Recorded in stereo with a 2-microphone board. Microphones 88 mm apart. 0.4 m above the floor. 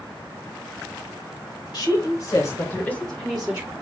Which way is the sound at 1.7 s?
55° left (ahead or behind).